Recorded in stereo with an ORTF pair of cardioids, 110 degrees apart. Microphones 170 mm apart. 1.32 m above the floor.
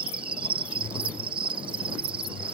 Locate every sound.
0.0 s an insect: 30° right